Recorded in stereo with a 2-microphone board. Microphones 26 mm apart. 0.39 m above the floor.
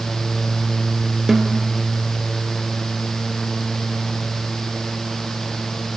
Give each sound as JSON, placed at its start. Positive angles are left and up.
{"t": 1.3, "sound": "a snare drum", "side_deg": -10, "distance_m": 2.0}